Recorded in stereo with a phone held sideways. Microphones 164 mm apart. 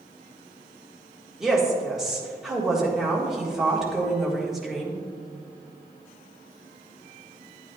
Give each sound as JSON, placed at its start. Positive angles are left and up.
{"t": 1.4, "sound": "a woman speaking", "side_deg": -5, "distance_m": 1.7}